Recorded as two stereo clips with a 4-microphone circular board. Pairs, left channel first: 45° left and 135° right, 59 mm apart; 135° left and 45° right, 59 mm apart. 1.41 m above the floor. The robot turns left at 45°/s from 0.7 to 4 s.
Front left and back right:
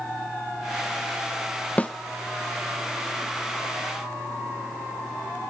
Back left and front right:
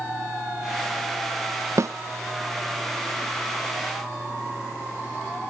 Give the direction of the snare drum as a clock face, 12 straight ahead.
1 o'clock.